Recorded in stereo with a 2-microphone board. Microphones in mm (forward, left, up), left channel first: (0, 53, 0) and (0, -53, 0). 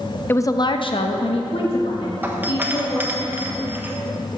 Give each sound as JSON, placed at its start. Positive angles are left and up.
{"t": 0.3, "sound": "a woman speaking", "side_deg": 20, "distance_m": 0.7}
{"t": 2.2, "sound": "a doorbell", "side_deg": -20, "distance_m": 1.2}